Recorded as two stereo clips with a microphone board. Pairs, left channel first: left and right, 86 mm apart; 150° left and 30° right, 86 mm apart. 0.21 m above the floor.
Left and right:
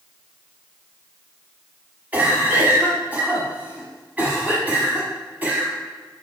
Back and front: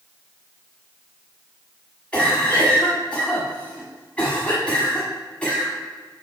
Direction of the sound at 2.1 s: 145° right.